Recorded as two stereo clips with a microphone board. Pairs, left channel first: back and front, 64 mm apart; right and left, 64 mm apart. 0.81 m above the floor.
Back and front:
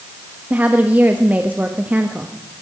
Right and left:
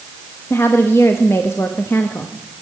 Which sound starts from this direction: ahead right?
A woman speaking, at 0.5 s.